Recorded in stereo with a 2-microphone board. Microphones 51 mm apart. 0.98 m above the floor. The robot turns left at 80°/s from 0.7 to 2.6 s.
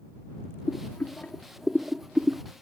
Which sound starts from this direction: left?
Boiling, at 0.7 s.